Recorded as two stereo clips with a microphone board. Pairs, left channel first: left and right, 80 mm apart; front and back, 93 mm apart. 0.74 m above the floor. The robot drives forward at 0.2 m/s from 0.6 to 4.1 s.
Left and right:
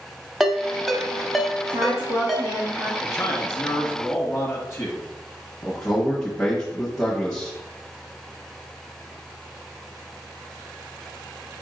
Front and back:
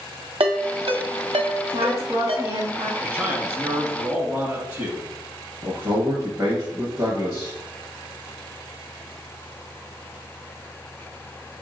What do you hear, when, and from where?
0.4 s a ringtone: straight behind, 0.6 m
1.7 s a woman speaking: 130° right, 0.9 m; by 2.9 s 140° right, 1.0 m
3.0 s a man speaking: 135° left, 1.1 m; by 5.1 s 145° left, 1.2 m
5.6 s a man speaking: 165° left, 1.1 m